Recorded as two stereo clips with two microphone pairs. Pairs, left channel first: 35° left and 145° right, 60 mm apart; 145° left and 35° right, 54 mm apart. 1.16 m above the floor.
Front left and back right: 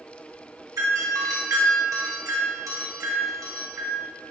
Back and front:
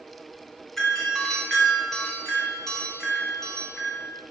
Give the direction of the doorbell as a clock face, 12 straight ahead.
4 o'clock.